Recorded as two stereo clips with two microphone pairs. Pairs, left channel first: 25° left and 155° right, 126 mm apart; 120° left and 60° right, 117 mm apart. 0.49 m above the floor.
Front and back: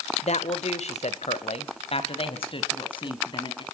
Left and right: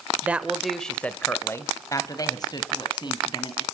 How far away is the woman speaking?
About 1.8 m.